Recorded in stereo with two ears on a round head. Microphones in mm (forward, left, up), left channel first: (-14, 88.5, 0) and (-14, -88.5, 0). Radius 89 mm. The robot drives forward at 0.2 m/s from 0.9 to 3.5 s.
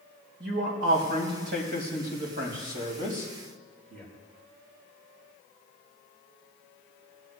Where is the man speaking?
55° right (ahead or behind), 3 m; by 4.0 s 45° right (ahead or behind), 3 m.